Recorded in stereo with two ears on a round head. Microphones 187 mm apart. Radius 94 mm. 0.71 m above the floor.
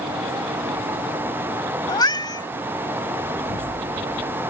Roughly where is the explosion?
Left.